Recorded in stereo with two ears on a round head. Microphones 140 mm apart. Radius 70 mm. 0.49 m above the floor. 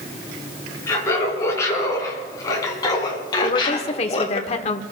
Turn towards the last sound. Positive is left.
turn(degrees=40)  # may be behind; listen again after turning